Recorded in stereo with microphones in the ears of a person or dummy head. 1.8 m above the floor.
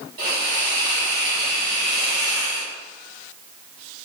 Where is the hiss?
30° right (ahead or behind), 1.4 m.